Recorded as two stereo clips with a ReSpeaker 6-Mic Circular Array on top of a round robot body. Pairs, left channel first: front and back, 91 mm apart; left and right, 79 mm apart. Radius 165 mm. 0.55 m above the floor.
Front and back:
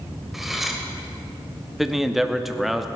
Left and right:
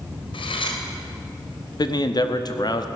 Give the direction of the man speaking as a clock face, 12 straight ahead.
9 o'clock.